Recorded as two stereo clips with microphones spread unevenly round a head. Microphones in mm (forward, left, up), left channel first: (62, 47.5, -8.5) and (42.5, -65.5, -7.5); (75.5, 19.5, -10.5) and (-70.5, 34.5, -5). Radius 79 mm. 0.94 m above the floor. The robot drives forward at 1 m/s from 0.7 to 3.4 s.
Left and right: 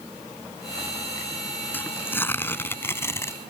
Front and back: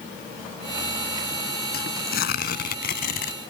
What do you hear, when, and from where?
1.7 s tearing paper: 10° left; by 3.3 s 15° left